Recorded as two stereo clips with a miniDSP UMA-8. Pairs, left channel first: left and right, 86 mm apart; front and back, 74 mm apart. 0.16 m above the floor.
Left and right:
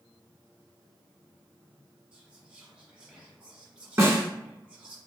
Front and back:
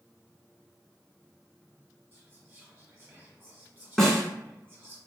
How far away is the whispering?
About 1.5 m.